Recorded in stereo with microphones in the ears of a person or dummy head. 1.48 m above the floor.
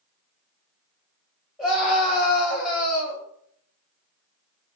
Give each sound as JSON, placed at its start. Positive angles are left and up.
{"t": 1.6, "sound": "a scream", "side_deg": 10, "distance_m": 1.2}